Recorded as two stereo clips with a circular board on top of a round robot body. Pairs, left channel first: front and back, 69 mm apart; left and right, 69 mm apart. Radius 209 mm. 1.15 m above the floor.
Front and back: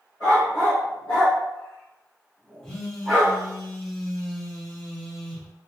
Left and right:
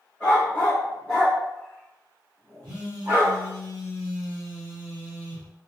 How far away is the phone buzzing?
About 0.8 m.